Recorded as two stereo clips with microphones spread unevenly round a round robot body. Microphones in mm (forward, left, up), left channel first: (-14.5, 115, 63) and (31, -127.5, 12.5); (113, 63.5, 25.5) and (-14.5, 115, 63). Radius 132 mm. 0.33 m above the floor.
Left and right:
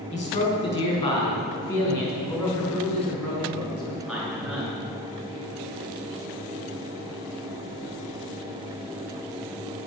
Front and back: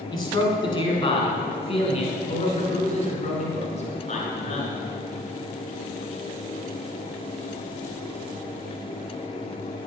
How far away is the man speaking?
About 4.5 m.